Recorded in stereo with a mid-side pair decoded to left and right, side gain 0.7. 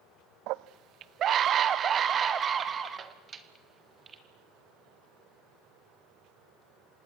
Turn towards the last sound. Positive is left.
turn(degrees=-25)